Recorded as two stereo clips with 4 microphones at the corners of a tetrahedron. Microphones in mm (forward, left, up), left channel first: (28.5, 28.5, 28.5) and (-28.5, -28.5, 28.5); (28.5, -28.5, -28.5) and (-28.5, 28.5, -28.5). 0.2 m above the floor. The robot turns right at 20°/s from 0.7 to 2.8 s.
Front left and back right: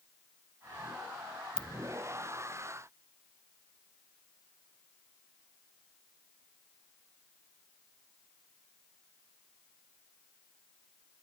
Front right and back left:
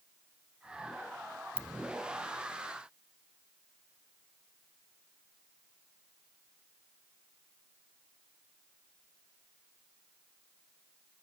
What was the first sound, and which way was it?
A ringtone, 25° right.